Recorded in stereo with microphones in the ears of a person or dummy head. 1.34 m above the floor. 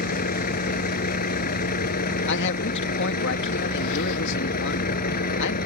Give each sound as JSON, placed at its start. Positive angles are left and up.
{"t": 0.0, "sound": "a vehicle", "side_deg": 50}
{"t": 2.3, "sound": "a man speaking", "side_deg": 65}